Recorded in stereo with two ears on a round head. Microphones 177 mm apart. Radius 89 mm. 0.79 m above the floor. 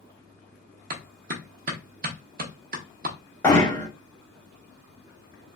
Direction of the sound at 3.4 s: 10° left (ahead or behind).